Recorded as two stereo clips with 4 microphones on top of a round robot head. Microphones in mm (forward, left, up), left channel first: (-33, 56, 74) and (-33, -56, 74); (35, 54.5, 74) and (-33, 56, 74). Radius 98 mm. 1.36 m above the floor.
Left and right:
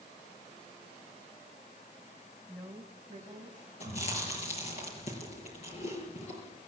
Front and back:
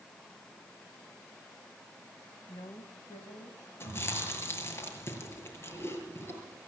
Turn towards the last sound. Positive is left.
turn(degrees=50)